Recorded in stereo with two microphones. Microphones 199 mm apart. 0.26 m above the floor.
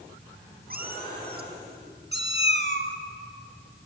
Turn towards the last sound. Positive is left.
turn(degrees=-70)  # may be behind; listen again after turning